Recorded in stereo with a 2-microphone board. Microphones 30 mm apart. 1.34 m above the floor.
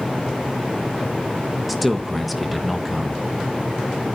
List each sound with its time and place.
1.7 s a man speaking: centre (ahead or behind), 1.4 m